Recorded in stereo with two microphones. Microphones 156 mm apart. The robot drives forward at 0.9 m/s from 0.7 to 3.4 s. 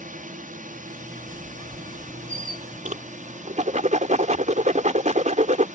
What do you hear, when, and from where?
0.0 s a drone: 60° right (ahead or behind); by 5.8 s 55° right (ahead or behind)
1.2 s a squeak: 35° left (ahead or behind); by 3.1 s 20° left (ahead or behind)
2.9 s a whoosh: 60° right (ahead or behind); by 5.7 s 50° right (ahead or behind)